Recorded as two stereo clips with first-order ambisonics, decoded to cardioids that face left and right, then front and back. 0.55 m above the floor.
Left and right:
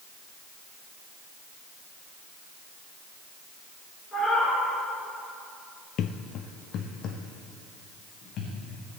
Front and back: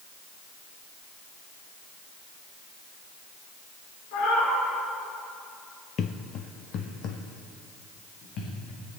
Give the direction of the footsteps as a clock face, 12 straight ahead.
10 o'clock.